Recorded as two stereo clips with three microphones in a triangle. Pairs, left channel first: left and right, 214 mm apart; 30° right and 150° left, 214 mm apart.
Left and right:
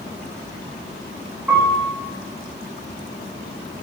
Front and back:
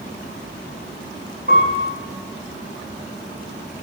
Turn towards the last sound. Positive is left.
turn(degrees=-175)